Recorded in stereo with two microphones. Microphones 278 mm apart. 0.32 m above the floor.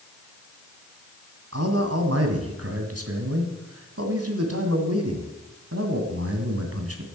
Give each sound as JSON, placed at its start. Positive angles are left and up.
{"t": 1.5, "sound": "a man speaking", "side_deg": -60, "distance_m": 2.0}